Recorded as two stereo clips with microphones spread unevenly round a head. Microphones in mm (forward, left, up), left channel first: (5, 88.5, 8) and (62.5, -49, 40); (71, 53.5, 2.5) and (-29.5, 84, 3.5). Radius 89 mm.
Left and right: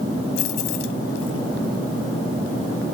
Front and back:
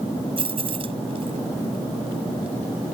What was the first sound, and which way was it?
Keys jangling, 130° left.